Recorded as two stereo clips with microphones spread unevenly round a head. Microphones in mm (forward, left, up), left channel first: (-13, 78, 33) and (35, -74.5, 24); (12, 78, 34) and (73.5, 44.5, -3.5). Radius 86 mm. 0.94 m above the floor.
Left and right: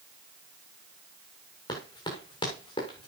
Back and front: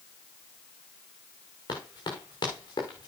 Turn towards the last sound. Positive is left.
turn(degrees=165)